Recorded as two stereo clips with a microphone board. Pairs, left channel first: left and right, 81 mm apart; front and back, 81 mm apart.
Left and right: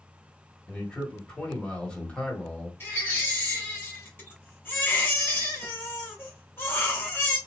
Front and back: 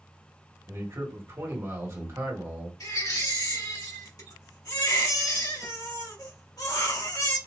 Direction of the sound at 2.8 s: 30° left.